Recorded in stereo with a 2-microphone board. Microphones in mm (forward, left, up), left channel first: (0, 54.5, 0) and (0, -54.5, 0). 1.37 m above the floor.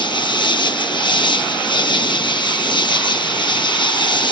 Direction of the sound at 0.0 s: 45° left (ahead or behind).